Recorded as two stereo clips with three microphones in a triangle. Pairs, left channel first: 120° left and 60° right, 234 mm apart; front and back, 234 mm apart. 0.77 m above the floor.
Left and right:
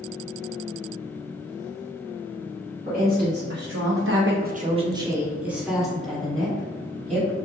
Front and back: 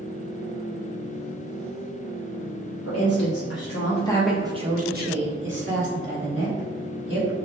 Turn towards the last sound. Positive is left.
turn(degrees=-155)